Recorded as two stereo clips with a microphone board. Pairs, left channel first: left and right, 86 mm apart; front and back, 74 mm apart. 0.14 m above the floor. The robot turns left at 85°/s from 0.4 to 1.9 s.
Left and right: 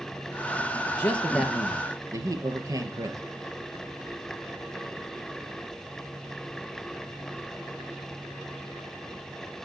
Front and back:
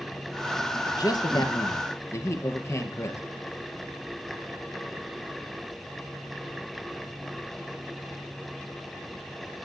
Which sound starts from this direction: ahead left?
A man speaking, at 0.8 s.